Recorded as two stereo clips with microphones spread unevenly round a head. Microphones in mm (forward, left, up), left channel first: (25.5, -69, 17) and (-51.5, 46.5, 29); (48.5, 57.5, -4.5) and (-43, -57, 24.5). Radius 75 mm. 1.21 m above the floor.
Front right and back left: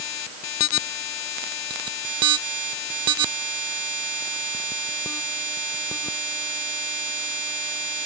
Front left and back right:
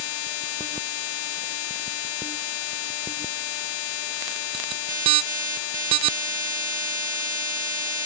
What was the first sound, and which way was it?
Only background noise.